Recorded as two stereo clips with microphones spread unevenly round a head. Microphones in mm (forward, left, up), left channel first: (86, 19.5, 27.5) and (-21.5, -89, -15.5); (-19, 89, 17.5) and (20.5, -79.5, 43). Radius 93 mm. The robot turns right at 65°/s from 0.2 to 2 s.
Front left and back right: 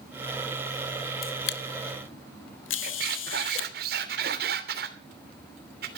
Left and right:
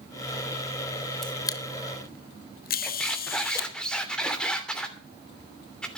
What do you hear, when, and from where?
1.2 s a camera shutter: 15° left, 1.4 m; by 3.7 s 65° left, 1.4 m
2.8 s a squeak: 170° right, 3 m